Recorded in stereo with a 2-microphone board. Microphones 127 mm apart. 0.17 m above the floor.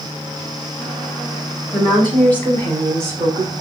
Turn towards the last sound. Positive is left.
turn(degrees=10)  # may be behind; listen again after turning